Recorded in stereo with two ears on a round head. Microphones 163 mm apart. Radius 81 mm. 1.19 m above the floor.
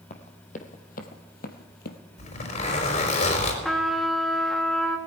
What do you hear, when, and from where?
0.1 s running footsteps: 40° left (ahead or behind), 2.5 m; by 2.0 s 55° left (ahead or behind), 1.9 m
2.2 s a zipper: 45° left (ahead or behind), 5 m
3.6 s a trumpet: centre (ahead or behind), 2 m